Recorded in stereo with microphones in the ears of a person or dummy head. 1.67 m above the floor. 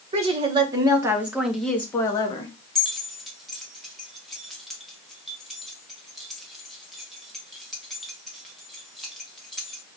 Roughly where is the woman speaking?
Right.